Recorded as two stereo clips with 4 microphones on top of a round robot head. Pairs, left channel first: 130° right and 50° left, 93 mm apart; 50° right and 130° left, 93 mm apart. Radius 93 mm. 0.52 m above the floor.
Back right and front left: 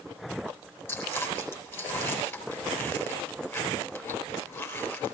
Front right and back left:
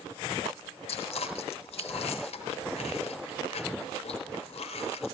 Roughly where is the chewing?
Ahead right.